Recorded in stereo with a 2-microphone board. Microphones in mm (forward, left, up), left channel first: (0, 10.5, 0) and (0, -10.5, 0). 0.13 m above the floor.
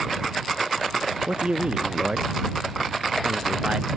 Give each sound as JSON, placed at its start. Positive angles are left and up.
{"t": 1.3, "sound": "a man speaking", "side_deg": -65}